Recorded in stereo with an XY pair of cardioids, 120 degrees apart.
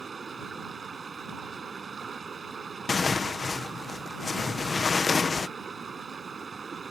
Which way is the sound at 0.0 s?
30° right.